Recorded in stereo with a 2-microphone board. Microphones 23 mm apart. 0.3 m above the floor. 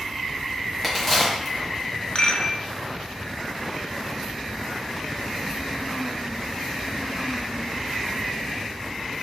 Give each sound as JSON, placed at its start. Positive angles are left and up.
{"t": 0.8, "sound": "a crack", "side_deg": 5, "distance_m": 1.5}
{"t": 2.1, "sound": "a rattle", "side_deg": 55, "distance_m": 0.6}